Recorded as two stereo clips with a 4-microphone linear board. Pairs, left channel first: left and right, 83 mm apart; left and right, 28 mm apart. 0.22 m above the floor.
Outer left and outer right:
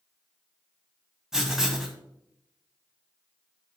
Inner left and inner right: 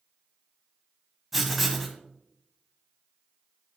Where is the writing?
5° right (ahead or behind), 1.4 m.